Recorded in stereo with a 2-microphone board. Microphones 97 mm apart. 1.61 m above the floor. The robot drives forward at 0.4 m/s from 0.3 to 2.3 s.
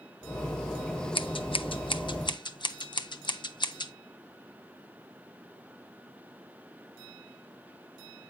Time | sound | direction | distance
1.1 | scissors | 60° left (ahead or behind) | 0.6 m